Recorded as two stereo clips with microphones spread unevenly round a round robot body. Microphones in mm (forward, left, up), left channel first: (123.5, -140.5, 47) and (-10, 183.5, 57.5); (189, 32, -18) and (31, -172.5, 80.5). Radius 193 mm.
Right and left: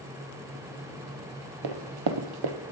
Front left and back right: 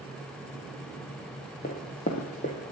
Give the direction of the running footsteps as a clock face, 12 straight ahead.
8 o'clock.